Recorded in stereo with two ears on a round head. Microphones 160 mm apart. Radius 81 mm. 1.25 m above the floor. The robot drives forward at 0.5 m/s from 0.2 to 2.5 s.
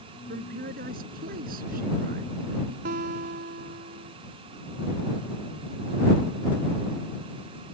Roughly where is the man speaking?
Right.